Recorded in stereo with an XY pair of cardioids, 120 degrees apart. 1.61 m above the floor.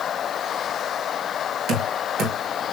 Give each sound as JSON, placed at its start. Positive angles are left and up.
{"t": 1.7, "sound": "knocking", "azimuth_deg": -65, "distance_m": 2.5}